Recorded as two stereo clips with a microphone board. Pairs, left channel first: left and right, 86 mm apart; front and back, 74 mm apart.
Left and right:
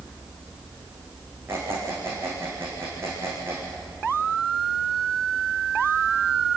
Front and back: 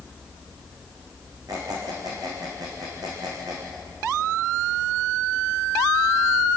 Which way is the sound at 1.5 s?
150° right.